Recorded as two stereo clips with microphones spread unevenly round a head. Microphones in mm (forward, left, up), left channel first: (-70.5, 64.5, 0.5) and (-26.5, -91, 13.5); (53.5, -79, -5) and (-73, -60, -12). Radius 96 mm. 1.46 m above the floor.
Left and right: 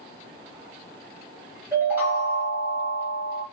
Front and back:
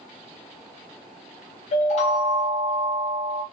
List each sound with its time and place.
1.7 s a chime: straight ahead, 0.5 m